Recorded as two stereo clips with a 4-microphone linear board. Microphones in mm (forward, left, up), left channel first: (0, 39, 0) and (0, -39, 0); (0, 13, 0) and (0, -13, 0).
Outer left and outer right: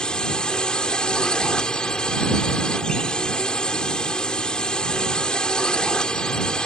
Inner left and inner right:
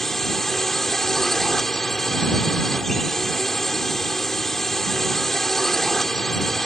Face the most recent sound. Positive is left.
turn(degrees=10)  # may be behind; listen again after turning